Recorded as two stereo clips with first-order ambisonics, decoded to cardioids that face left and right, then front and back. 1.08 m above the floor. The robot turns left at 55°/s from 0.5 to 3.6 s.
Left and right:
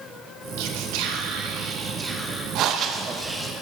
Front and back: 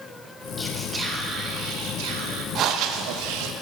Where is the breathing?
130° right, 0.5 m; by 3.5 s 175° left, 0.5 m.